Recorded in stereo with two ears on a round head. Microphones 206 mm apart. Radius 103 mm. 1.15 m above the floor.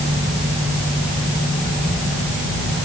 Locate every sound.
Only background noise.